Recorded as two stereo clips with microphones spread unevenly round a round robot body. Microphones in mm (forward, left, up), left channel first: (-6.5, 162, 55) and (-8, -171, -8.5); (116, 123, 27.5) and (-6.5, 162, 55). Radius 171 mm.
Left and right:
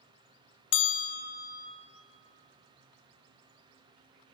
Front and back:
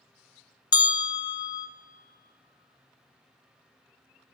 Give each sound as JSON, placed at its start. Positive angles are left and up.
{"t": 0.7, "sound": "a bell", "azimuth_deg": 50, "distance_m": 0.6}